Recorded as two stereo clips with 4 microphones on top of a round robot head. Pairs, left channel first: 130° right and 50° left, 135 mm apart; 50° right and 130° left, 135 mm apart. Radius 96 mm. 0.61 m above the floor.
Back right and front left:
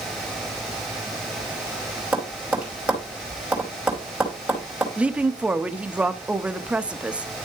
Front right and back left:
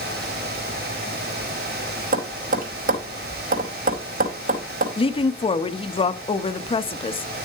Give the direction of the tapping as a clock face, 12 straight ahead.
8 o'clock.